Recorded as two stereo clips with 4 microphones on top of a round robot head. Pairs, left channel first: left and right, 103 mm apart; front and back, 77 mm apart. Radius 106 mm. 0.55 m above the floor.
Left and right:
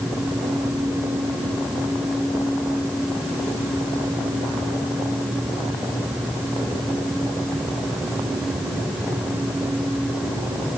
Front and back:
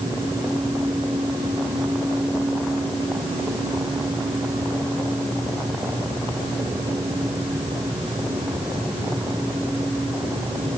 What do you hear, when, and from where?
Only background noise.